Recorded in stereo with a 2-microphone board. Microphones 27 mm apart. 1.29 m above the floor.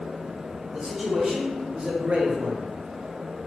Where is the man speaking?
20° right (ahead or behind), 1.7 m; by 2.7 s 60° right (ahead or behind), 0.5 m.